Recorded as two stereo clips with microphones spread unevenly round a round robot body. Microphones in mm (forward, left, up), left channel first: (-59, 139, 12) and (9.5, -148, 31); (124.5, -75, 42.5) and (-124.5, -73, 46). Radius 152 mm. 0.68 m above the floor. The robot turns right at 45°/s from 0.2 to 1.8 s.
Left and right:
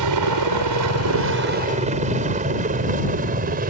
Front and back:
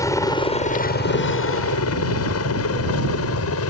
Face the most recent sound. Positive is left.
turn(degrees=-15)